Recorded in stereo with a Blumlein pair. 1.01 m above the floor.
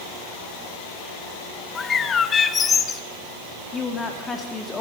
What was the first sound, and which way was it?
A bird, 20° left.